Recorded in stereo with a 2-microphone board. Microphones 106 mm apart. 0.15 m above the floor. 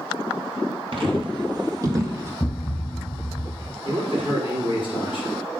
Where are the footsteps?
60° right (ahead or behind), 1.7 m; by 2.3 s 30° right (ahead or behind), 2 m.